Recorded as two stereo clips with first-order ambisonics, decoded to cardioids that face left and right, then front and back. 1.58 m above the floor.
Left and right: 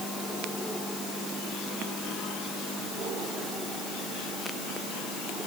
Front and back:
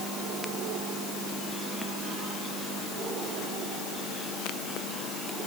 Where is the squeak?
I don't hear a squeak.